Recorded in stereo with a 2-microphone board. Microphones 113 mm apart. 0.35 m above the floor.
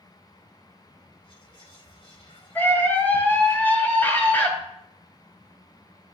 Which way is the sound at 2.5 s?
15° left (ahead or behind).